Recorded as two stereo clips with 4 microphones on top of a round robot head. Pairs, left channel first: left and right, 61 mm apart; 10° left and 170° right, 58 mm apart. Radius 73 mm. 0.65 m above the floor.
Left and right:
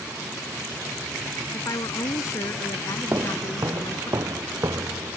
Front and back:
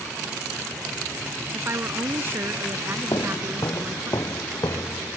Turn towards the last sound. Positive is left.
turn(degrees=-45)